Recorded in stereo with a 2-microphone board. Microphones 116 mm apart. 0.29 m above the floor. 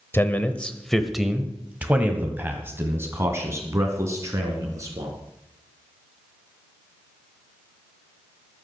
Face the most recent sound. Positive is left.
turn(degrees=-30)  # may be behind; listen again after turning